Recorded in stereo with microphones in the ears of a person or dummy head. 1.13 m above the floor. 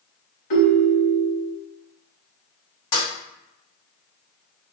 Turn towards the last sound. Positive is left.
turn(degrees=25)  # may be behind; listen again after turning